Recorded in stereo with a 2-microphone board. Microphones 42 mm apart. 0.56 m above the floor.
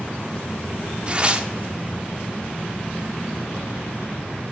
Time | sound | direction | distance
1.1 | tearing paper | 25° right (ahead or behind) | 0.5 m